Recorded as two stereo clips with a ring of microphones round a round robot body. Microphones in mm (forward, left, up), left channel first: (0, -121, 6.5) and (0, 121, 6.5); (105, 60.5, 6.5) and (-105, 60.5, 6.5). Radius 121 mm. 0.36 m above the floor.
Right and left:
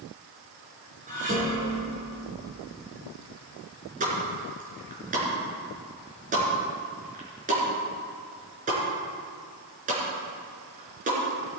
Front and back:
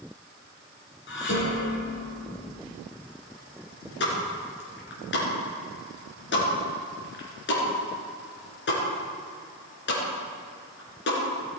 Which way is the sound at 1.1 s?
30° left.